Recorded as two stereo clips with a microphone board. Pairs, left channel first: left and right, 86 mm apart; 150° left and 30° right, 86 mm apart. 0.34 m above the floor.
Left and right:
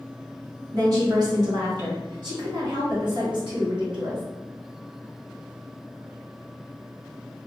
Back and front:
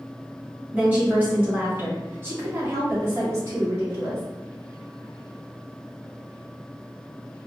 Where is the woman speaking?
95° right, 1.9 m; by 4.2 s 80° right, 3.5 m.